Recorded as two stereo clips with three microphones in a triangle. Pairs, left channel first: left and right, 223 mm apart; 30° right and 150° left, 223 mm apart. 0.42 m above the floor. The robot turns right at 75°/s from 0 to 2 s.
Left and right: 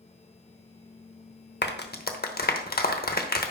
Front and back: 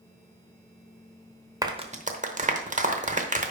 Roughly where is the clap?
Left.